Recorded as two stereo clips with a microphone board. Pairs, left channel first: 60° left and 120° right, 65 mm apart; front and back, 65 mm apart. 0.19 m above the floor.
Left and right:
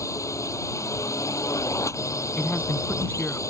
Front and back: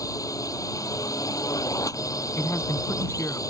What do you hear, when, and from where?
0.0 s a drone: 25° left
2.4 s a man speaking: 5° left